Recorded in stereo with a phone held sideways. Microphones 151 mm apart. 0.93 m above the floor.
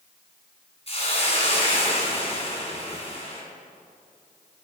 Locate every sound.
0.9 s a hiss: 40° left (ahead or behind), 2.5 m